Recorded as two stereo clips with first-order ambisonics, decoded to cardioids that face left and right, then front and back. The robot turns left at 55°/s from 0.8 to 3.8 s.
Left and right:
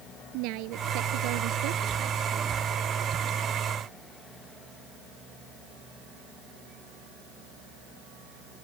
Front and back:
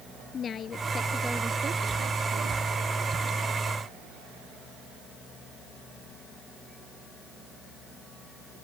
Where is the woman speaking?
65° right; by 2.6 s 165° right.